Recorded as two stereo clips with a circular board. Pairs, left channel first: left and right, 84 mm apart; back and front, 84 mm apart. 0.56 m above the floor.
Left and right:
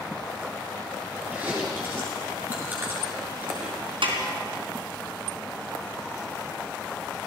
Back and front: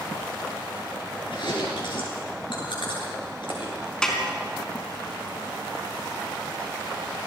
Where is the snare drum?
100° right, 3.5 m.